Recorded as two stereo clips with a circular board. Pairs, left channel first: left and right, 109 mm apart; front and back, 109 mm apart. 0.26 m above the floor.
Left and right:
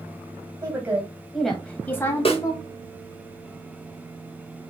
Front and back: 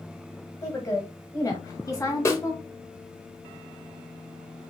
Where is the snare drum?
60° left, 1.1 m.